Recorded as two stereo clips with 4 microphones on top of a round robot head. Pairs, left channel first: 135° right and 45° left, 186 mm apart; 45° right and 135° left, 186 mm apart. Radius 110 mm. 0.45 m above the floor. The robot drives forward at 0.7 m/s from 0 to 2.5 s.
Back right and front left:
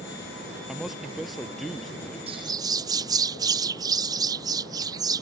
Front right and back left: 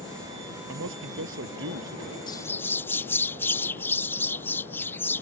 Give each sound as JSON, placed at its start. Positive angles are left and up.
{"t": 0.7, "sound": "a man speaking", "azimuth_deg": 130}
{"t": 2.3, "sound": "a bird", "azimuth_deg": 10}